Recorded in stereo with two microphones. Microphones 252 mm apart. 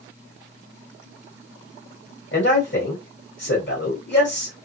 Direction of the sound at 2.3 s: 55° left (ahead or behind).